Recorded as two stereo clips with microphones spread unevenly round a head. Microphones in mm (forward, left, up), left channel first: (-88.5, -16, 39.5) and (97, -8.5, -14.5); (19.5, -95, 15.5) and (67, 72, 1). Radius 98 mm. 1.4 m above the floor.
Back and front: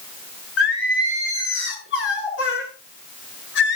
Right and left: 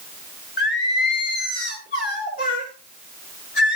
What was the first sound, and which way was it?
Singing, 155° right.